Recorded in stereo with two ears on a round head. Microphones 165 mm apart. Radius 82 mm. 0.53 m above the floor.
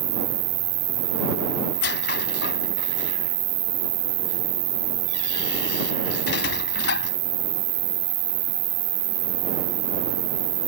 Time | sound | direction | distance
0.0 | an insect | 75° right (ahead or behind) | ?
1.7 | a squeak | 65° left (ahead or behind) | ?